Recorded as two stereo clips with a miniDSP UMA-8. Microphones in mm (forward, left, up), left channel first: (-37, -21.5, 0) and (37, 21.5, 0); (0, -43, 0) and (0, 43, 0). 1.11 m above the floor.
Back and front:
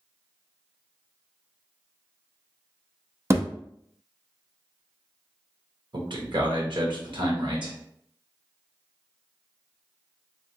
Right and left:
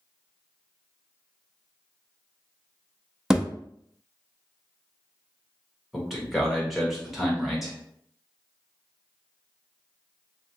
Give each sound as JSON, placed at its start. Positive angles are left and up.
{"t": 3.3, "sound": "a thud", "azimuth_deg": 10, "distance_m": 0.5}
{"t": 5.9, "sound": "a man speaking", "azimuth_deg": 0, "distance_m": 1.3}